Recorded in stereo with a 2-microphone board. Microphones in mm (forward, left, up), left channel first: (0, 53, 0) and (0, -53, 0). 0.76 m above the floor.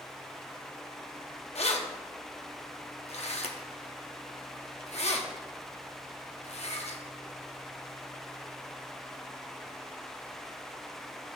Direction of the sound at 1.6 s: 70° left (ahead or behind).